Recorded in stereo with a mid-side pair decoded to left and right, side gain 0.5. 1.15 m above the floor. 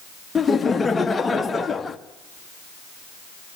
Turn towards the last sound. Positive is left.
turn(degrees=25)